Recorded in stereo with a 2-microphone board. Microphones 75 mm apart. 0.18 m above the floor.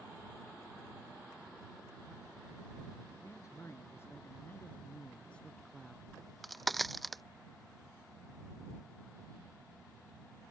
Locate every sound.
3.2 s a man speaking: 40° left (ahead or behind); by 6.0 s centre (ahead or behind)
6.1 s a crack: centre (ahead or behind)